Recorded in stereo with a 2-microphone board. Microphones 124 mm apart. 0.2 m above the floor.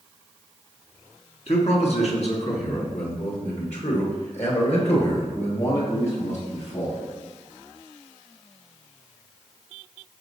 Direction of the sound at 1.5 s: 55° left (ahead or behind).